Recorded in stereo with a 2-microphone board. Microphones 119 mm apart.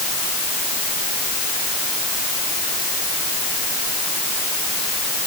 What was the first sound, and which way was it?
Only background noise.